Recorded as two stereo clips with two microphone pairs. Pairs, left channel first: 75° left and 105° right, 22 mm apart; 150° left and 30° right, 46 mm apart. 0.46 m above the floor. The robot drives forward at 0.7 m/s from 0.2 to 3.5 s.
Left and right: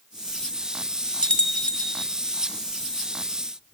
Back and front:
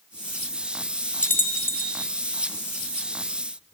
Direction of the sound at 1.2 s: 105° left.